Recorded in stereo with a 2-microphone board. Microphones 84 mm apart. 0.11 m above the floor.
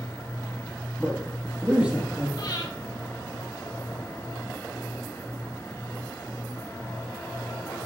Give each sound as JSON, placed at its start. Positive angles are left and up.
{"t": 1.0, "sound": "a man speaking", "side_deg": -15, "distance_m": 3.5}
{"t": 2.4, "sound": "breathing", "side_deg": 60, "distance_m": 3.0}